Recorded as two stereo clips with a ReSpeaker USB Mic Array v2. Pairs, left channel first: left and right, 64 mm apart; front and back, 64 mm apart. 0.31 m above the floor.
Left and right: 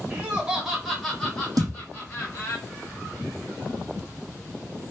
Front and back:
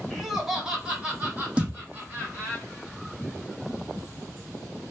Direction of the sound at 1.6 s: 105° right.